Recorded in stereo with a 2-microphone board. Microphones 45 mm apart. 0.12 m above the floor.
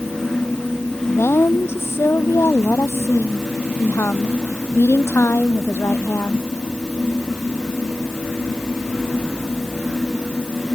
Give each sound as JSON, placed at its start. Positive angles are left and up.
{"t": 1.1, "sound": "a woman speaking", "side_deg": 70}